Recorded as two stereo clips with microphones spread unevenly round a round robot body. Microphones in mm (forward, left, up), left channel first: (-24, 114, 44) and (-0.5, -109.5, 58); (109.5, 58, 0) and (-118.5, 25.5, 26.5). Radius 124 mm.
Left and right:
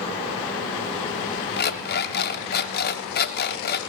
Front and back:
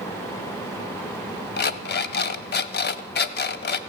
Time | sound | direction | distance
1.6 | an alarm clock | 50° left | 0.8 m